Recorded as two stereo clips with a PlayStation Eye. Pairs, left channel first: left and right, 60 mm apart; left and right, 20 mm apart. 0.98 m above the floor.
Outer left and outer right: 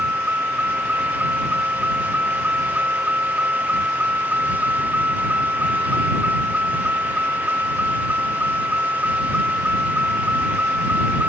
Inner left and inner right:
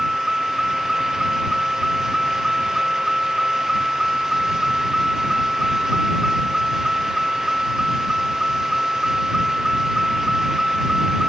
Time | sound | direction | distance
0.0 | a vehicle | 30° right (ahead or behind) | ?